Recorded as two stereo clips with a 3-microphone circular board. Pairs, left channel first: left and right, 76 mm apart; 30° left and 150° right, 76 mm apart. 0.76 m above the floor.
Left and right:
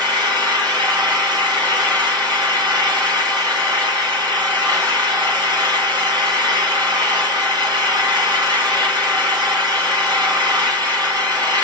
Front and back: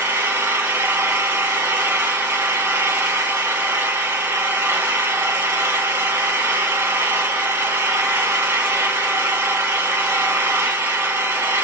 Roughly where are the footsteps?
I don't hear footsteps.